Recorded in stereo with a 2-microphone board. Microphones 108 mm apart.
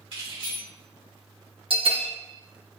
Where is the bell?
55° right (ahead or behind), 0.6 m.